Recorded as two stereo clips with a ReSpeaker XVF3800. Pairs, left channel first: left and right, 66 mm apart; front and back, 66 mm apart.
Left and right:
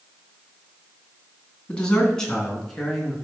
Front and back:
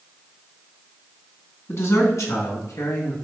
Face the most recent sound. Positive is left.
turn(degrees=0)